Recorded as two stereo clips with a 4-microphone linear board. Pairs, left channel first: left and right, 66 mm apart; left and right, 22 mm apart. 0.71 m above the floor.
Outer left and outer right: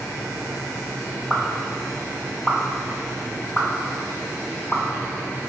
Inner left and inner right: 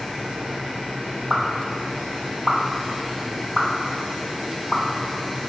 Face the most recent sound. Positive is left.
turn(degrees=20)  # may be behind; listen again after turning